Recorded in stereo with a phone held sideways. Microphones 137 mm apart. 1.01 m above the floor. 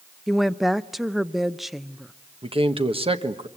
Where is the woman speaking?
Centre (ahead or behind), 0.5 m.